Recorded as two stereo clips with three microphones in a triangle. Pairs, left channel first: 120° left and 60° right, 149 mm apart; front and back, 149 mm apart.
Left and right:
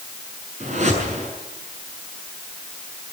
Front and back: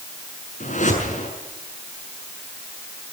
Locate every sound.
0.6 s a whoosh: 25° right, 6.5 m